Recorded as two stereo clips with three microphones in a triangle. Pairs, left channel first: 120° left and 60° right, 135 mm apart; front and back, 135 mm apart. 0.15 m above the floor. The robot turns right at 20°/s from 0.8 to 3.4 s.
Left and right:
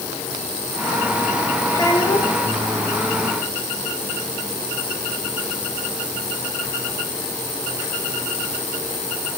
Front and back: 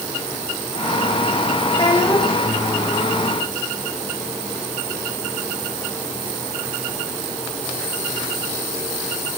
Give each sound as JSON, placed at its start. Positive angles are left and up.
{"t": 1.7, "sound": "a child speaking", "azimuth_deg": 55, "distance_m": 8.0}